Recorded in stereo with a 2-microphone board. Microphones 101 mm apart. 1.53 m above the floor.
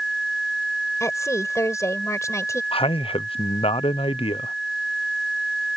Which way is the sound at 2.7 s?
65° left (ahead or behind).